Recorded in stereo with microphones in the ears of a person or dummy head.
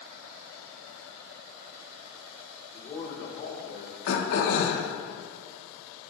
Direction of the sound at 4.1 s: 70° left (ahead or behind).